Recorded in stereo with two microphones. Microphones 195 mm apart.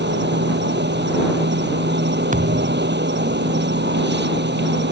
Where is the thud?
40° right (ahead or behind).